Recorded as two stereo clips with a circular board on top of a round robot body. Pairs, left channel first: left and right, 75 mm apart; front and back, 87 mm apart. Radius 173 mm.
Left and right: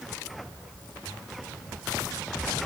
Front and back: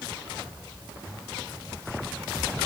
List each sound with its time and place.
Only background noise.